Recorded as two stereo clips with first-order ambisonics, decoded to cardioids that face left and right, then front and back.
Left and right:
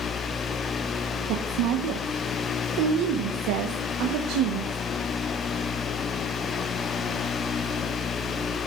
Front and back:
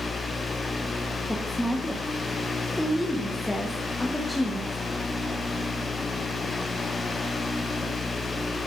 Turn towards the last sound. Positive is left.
turn(degrees=-85)